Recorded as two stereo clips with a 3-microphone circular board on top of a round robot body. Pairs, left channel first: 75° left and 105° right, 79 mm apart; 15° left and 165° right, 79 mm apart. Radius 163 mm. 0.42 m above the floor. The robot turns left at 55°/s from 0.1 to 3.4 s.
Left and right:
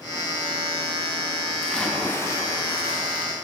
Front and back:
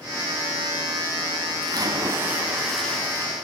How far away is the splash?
About 3.5 m.